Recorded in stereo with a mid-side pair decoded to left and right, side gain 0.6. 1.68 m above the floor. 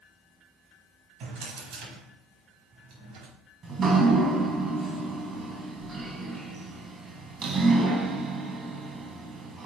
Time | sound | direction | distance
1.2 | a drawer | 70° right | 4.5 m
3.6 | dripping | 40° right | 2.5 m